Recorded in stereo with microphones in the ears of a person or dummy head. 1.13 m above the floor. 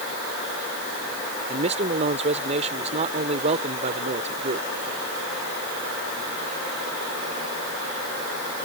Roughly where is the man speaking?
Right.